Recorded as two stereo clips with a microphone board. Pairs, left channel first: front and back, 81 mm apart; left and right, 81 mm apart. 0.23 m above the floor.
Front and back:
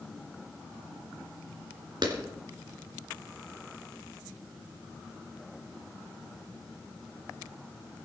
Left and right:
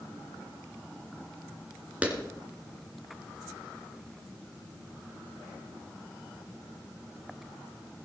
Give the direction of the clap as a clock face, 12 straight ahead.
5 o'clock.